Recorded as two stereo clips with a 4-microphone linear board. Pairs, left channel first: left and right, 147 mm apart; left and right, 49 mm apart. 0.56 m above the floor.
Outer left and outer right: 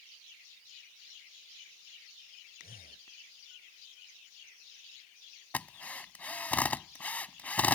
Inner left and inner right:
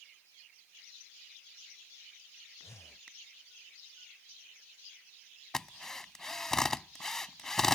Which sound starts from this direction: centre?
A drill, at 5.5 s.